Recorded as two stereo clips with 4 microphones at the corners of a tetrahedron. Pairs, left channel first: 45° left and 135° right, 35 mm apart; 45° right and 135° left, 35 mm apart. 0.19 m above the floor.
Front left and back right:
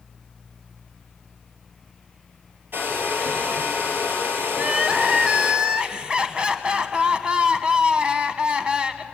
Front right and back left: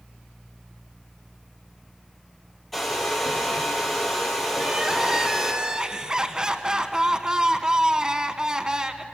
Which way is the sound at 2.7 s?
130° right.